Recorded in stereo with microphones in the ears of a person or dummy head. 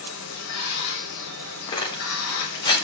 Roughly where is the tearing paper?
Left.